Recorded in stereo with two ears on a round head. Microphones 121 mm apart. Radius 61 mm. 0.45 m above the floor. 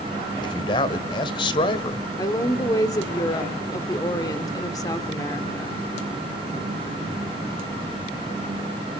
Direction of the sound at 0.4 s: 35° left (ahead or behind).